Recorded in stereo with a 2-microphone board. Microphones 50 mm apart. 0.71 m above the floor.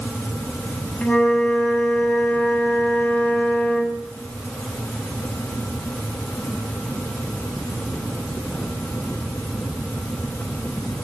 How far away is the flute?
About 3 m.